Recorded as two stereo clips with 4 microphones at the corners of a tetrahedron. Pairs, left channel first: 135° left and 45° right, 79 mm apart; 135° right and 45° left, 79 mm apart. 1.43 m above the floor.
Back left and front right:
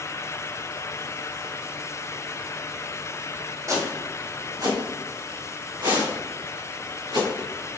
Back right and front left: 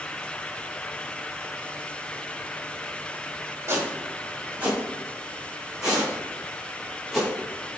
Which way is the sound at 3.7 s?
10° right.